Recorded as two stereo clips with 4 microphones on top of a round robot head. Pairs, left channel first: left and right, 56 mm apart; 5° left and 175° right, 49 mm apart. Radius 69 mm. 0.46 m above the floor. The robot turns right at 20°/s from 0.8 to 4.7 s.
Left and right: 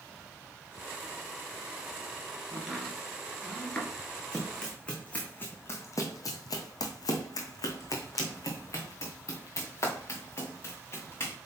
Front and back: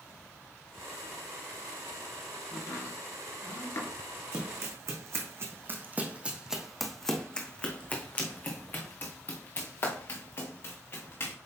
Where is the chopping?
5° right, 2.5 m; by 3.9 s 20° left, 2.5 m.